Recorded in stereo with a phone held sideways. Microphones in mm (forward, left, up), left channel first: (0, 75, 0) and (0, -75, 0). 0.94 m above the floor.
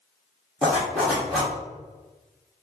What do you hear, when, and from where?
0.6 s a zipper: centre (ahead or behind), 1.2 m